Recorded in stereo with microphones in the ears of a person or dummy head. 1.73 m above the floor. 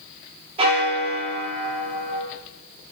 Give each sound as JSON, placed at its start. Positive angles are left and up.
{"t": 0.6, "sound": "a bell", "side_deg": -30, "distance_m": 3.0}